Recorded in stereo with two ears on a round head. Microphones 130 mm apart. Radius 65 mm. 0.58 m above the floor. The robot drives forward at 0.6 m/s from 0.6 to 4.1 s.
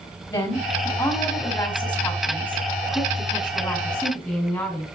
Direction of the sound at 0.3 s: 15° left (ahead or behind).